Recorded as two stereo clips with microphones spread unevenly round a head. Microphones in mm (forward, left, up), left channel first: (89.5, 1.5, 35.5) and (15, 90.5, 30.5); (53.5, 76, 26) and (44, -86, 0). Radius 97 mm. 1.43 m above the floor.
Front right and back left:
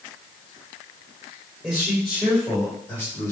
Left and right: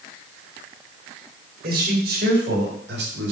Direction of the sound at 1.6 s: 140° right.